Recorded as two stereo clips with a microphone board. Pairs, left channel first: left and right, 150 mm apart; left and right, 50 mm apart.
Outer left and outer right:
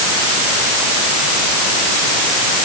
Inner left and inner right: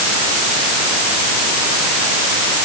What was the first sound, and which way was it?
Only background noise.